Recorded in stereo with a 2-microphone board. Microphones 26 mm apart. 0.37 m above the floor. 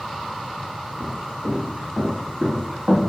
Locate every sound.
1.0 s footsteps: 70° right (ahead or behind), 2.0 m; by 3.0 s 55° right (ahead or behind), 0.9 m